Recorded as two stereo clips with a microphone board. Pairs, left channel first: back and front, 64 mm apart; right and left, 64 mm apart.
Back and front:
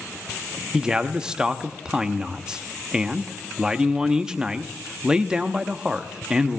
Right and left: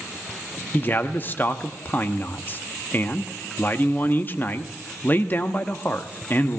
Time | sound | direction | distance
0.7 | a man speaking | 70° right | 0.8 m